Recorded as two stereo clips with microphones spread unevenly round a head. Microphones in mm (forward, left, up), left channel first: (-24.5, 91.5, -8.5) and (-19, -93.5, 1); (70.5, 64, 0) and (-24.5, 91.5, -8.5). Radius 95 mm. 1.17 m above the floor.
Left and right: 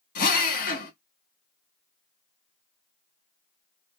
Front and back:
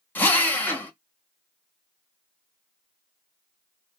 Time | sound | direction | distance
0.1 | a drill | 50° left | 1.1 m